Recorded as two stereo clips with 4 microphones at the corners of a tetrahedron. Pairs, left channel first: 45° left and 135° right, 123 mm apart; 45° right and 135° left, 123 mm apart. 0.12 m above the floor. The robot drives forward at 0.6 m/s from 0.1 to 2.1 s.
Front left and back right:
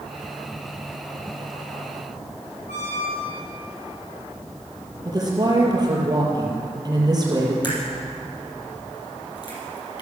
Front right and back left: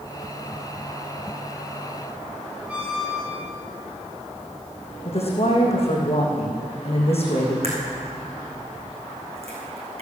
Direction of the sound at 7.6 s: 100° left.